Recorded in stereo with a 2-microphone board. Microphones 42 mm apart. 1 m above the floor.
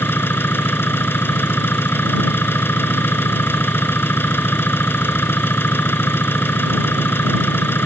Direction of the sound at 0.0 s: 60° left (ahead or behind).